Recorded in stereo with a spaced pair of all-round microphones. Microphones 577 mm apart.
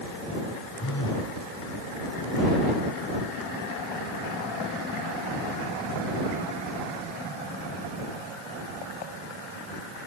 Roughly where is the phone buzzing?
Left.